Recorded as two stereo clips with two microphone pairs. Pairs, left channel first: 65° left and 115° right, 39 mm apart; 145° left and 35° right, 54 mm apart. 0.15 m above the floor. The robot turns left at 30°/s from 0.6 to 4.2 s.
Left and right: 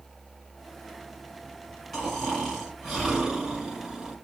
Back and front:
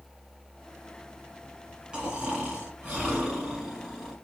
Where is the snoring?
35° right, 1.6 m; by 4.2 s 100° right, 1.6 m.